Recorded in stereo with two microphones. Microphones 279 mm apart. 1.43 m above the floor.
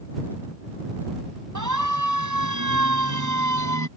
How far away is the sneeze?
I don't hear a sneeze.